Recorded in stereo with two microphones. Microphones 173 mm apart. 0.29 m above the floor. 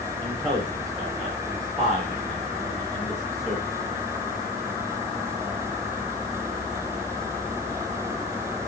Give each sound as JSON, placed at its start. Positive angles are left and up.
{"t": 0.2, "sound": "a man speaking", "side_deg": 0, "distance_m": 9.0}